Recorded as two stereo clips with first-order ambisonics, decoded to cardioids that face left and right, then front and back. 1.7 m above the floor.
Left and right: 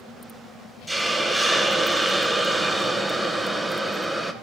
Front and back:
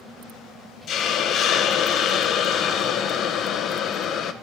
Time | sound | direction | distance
0.9 | a hiss | 10° right | 0.8 m